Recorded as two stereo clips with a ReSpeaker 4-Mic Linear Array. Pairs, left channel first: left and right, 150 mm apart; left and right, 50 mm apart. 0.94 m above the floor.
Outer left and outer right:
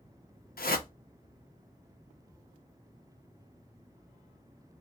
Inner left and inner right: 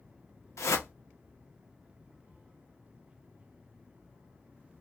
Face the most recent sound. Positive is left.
turn(degrees=80)